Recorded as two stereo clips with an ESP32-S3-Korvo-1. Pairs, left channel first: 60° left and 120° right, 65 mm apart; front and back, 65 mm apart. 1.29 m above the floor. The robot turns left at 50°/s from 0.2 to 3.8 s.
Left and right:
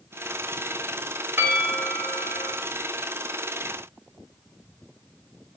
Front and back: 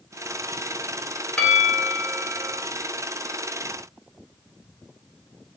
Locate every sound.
1.4 s a bell: 65° right, 0.9 m; by 2.5 s 125° right, 0.9 m